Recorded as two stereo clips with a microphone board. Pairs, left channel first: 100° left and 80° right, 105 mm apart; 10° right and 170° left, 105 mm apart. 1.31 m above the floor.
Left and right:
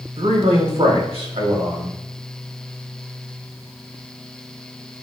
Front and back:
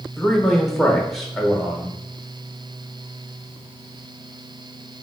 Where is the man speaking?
100° right, 1.2 m.